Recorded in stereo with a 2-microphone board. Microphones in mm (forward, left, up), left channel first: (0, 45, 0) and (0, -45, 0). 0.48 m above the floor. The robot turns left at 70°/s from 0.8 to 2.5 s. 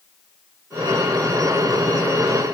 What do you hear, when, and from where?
Only background noise.